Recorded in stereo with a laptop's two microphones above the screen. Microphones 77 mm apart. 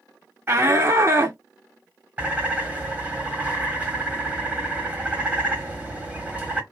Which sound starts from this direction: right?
A shout, at 0.5 s.